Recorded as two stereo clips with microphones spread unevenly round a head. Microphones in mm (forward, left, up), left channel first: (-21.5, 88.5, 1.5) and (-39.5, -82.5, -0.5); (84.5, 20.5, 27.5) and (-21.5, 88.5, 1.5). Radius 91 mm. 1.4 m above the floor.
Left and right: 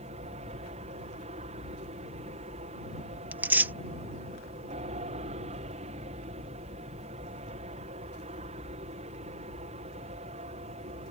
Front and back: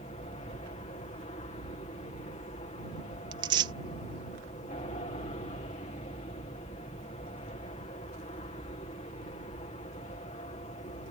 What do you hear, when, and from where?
0.0 s an aircraft: 55° right
3.3 s tearing paper: 165° right